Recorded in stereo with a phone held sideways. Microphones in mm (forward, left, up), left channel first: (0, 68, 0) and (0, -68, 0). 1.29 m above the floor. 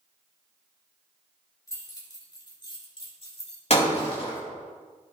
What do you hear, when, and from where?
1.7 s keys jangling: 25° left (ahead or behind), 3 m; by 3.6 s 50° left (ahead or behind), 3 m
3.7 s breaking glass: 50° left (ahead or behind), 3 m